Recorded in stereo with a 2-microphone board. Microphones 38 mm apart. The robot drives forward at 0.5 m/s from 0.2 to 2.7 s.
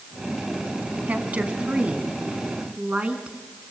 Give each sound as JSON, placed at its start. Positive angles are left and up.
{"t": 1.1, "sound": "a woman speaking", "side_deg": -45, "distance_m": 2.5}